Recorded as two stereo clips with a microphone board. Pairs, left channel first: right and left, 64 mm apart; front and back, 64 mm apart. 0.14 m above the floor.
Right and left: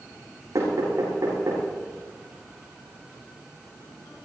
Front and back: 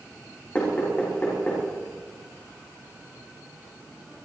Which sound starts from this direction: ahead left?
Knocking, at 0.6 s.